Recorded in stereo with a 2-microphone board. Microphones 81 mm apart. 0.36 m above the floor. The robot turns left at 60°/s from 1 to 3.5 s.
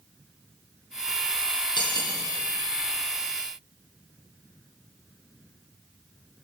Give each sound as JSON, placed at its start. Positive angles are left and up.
{"t": 1.8, "sound": "cutlery clinking", "side_deg": 65, "distance_m": 7.0}